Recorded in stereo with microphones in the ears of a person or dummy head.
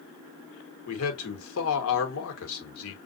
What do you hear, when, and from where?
0.9 s a man speaking: 75° left (ahead or behind), 1.4 m